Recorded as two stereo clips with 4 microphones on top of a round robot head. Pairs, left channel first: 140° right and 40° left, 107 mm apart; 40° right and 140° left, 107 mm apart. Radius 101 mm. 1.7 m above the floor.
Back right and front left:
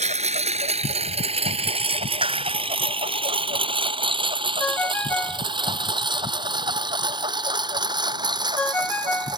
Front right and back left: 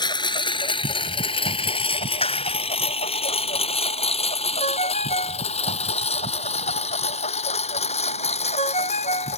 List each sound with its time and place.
0.0 s a lawn mower: 15° left; by 9.4 s 15° right
2.2 s a clap: 5° right
4.6 s a ringtone: 65° right